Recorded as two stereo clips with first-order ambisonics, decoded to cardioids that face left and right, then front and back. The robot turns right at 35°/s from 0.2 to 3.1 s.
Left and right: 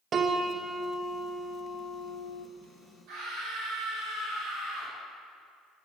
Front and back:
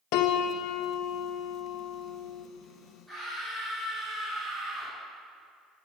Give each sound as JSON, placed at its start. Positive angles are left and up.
{"t": 0.1, "sound": "a piano", "azimuth_deg": -25, "distance_m": 0.6}
{"t": 3.1, "sound": "a scream", "azimuth_deg": -100, "distance_m": 3.0}